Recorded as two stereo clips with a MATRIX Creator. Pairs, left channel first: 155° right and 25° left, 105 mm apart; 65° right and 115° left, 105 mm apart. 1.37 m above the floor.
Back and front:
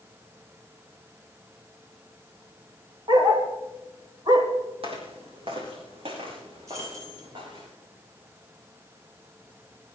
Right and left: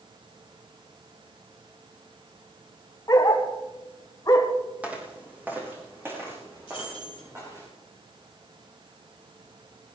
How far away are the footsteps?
About 4 m.